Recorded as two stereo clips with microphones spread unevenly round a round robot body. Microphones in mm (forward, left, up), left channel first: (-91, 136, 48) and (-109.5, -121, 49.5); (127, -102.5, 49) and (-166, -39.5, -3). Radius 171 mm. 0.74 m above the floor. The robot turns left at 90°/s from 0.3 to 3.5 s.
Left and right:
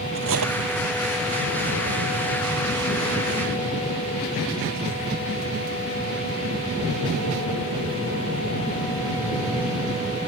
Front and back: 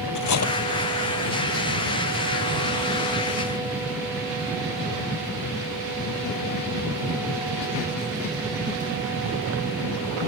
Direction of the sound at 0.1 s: 40° right.